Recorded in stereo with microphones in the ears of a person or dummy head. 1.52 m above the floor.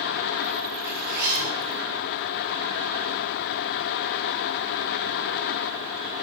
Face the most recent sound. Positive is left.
turn(degrees=-55)  # may be behind; listen again after turning